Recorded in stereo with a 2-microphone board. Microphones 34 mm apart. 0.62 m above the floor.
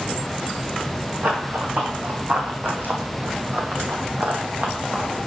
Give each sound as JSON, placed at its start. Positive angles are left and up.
{"t": 1.2, "sound": "running footsteps", "side_deg": -55, "distance_m": 2.0}